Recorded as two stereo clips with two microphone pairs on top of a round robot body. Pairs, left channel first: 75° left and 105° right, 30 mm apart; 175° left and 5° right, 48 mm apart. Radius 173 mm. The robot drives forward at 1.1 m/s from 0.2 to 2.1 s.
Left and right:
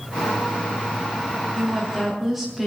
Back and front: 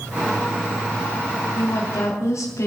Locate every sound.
1.6 s a woman speaking: 170° left, 2.5 m